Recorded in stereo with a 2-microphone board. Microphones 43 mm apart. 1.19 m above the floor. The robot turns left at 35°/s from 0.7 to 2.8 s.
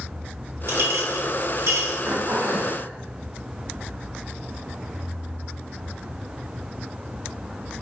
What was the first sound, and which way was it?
A clink, 65° right (ahead or behind).